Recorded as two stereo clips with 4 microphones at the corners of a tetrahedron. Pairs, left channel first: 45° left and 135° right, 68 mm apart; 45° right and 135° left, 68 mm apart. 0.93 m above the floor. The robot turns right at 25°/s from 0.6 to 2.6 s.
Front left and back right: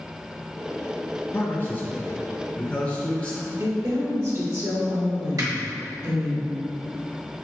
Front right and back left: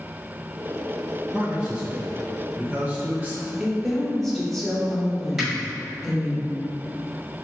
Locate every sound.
1.3 s a man speaking: 70° left, 0.5 m; by 3.5 s 105° left, 0.5 m
3.6 s a woman speaking: 130° right, 1.1 m
5.4 s a finger snap: 140° right, 1.4 m